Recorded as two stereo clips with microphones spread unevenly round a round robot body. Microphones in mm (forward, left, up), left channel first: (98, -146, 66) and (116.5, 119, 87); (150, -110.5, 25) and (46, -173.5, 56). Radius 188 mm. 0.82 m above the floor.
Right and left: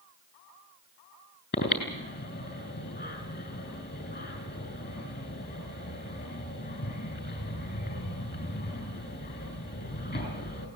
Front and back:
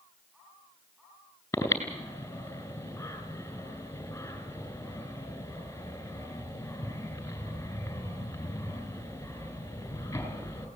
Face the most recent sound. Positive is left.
turn(degrees=-40)